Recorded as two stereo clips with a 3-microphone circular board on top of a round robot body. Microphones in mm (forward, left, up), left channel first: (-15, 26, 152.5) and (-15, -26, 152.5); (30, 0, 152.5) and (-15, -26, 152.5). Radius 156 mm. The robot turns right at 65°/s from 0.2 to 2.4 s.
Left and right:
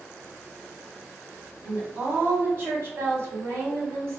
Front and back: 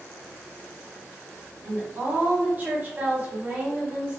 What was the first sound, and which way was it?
A woman speaking, 155° right.